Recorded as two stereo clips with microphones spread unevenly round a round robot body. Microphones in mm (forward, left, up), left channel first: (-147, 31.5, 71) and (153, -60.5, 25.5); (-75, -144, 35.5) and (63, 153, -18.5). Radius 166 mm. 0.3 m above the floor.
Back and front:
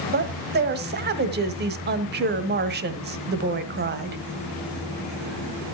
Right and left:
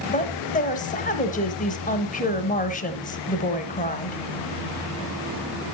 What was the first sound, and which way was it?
A woman speaking, 45° right.